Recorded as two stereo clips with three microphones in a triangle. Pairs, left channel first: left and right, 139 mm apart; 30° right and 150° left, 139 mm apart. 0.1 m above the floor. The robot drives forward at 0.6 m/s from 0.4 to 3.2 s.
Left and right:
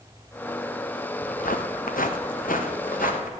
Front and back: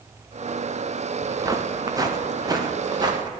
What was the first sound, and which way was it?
Footsteps, 85° left.